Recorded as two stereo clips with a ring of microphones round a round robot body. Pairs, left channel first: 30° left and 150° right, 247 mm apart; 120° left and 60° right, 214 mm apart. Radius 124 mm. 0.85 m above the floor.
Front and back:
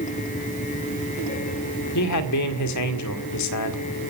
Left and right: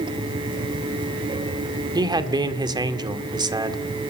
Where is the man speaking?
10° left, 2 m.